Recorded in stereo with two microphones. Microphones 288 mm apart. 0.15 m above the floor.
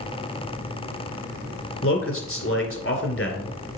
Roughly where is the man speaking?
Left.